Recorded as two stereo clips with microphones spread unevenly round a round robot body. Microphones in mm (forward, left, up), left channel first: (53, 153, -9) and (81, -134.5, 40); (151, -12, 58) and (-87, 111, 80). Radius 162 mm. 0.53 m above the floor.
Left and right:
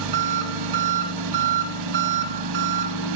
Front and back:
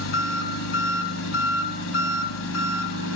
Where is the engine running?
75° right, 1.4 m.